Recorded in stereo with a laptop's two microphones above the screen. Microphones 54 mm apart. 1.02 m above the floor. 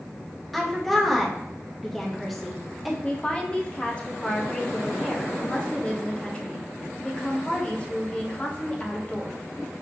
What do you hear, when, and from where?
0.5 s a woman speaking: centre (ahead or behind), 0.9 m
3.0 s a woman speaking: 20° left (ahead or behind), 0.7 m